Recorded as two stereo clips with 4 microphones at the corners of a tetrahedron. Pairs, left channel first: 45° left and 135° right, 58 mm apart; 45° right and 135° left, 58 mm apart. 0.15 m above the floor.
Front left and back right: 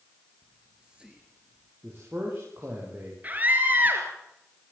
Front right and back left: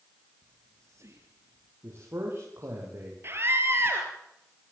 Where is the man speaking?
Straight behind, 10 m.